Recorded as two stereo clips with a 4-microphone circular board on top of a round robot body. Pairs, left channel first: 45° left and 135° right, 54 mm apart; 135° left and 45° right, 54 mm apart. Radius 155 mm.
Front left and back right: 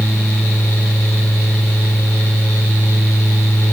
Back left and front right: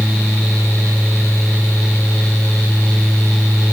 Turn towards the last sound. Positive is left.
No sound to turn to.